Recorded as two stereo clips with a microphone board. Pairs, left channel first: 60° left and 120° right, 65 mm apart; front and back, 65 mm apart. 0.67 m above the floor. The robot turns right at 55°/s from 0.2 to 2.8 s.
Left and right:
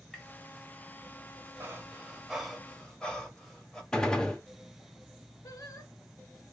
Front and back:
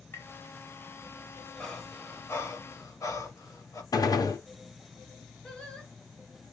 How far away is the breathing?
About 1.4 m.